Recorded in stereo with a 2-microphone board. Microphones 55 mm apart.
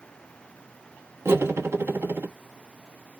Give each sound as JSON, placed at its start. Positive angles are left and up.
{"t": 1.2, "sound": "cutlery clinking", "side_deg": -50, "distance_m": 1.1}